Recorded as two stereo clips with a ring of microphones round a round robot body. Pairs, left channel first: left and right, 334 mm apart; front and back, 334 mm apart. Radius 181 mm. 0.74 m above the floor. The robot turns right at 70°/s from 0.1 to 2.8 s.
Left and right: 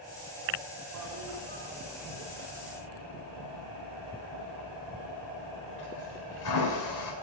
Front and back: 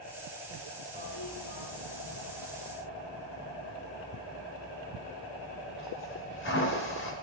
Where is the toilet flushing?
75° right, 3 m; by 7.1 s 55° left, 3 m.